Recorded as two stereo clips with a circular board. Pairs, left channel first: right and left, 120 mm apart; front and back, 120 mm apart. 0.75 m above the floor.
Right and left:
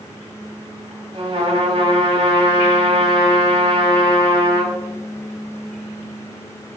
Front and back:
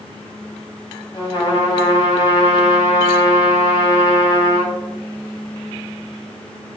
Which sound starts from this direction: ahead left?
A trumpet, at 1.1 s.